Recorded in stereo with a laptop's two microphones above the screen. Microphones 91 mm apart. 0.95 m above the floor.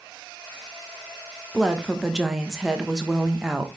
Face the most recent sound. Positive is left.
turn(degrees=-5)  # may be behind; listen again after turning